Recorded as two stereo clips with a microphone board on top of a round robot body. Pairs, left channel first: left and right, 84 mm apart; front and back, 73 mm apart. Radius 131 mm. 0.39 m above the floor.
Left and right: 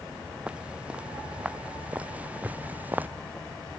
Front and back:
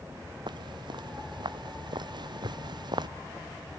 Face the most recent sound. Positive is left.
turn(degrees=-160)